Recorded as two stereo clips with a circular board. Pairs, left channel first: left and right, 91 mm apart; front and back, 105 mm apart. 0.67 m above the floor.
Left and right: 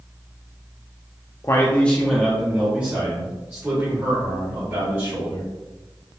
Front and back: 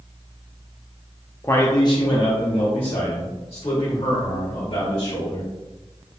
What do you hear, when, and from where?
1.4 s a man speaking: 55° left, 0.6 m; by 5.5 s 35° right, 3 m